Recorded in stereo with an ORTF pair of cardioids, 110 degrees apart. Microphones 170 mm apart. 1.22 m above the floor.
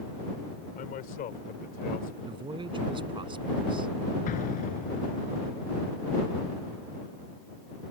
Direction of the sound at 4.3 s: 60° left.